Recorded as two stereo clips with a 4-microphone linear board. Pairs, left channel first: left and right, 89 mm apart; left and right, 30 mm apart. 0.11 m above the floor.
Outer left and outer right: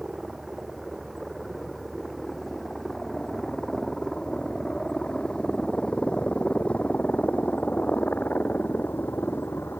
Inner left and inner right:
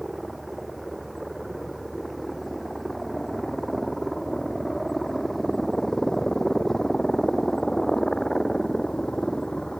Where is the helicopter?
Centre (ahead or behind); by 9.8 s 25° left (ahead or behind).